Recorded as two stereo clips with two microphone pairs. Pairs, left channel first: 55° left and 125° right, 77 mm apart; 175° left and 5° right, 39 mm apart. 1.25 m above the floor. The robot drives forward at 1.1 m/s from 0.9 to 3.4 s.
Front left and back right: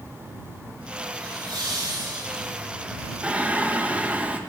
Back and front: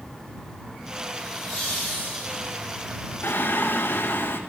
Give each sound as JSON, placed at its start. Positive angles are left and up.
{"t": 1.2, "sound": "laughter", "azimuth_deg": -85, "distance_m": 6.5}
{"t": 3.2, "sound": "singing", "azimuth_deg": 165, "distance_m": 1.3}